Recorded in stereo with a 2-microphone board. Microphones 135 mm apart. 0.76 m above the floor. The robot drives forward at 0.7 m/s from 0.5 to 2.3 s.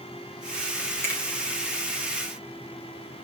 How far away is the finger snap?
About 2.5 m.